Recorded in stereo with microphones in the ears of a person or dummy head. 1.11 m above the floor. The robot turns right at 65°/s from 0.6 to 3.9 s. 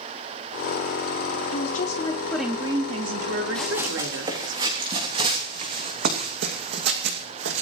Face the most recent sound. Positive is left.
turn(degrees=-65)  # may be behind; listen again after turning